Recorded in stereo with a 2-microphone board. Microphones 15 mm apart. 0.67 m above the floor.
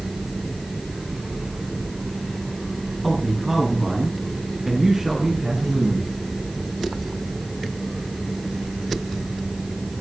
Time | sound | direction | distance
3.0 | a man speaking | 5° right (ahead or behind) | 8 m